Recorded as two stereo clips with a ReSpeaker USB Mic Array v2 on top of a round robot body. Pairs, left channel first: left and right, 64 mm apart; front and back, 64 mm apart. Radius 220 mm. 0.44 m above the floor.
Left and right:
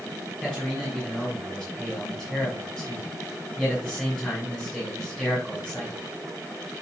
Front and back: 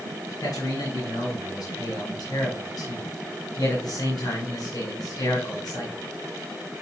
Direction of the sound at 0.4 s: 10° left.